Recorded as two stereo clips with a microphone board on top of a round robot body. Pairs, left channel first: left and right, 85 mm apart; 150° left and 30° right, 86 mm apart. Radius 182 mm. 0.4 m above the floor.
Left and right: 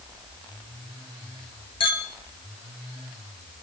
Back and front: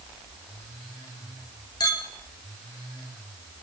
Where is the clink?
110° left, 2 m.